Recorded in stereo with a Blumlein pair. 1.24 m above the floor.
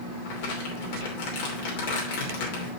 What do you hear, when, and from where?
0.2 s crumpling: 50° left, 2.5 m